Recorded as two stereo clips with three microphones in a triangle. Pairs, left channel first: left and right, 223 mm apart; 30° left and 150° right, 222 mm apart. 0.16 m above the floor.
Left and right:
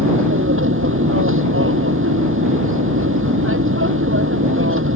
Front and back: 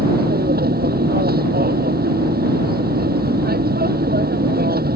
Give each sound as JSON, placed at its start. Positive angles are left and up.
{"t": 0.0, "sound": "an aircraft", "azimuth_deg": -105}